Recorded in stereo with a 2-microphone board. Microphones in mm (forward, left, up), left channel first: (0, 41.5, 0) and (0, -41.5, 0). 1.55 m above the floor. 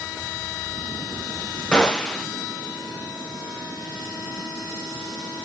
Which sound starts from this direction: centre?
A gunshot, at 1.7 s.